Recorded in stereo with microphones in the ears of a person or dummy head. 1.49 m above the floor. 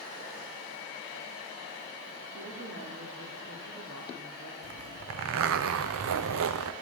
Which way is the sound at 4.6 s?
75° right (ahead or behind).